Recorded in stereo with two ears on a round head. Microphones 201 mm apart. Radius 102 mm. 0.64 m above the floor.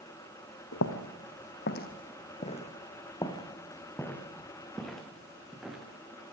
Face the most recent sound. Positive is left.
turn(degrees=-5)  # may be behind; listen again after turning